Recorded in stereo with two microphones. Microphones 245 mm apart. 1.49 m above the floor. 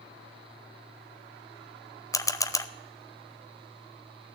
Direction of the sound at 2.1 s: 15° left (ahead or behind).